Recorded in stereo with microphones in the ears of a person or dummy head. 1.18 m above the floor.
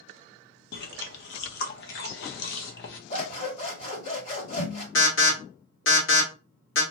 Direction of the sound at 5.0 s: 60° left (ahead or behind).